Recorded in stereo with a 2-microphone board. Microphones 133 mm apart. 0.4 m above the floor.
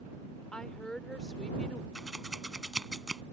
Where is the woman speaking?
5° left (ahead or behind).